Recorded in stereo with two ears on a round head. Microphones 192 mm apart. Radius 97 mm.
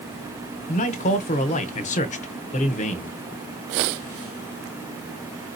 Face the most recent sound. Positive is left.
turn(degrees=35)  # may be behind; listen again after turning